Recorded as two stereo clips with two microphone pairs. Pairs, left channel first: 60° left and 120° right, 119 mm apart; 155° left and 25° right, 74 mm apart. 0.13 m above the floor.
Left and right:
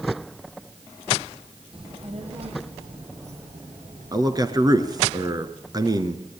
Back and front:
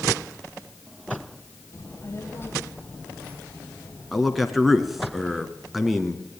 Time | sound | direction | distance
1.7 | a child speaking | 155° right | 3 m
4.1 | a man speaking | 115° right | 1.7 m